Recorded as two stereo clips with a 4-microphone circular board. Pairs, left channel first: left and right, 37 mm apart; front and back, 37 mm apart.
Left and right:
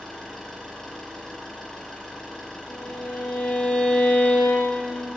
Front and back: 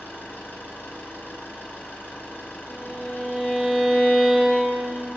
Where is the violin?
75° left, 7.5 m.